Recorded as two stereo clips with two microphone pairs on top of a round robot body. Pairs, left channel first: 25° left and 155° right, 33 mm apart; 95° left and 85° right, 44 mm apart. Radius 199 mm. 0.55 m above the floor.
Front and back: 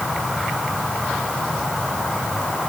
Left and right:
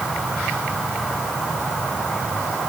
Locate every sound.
Only background noise.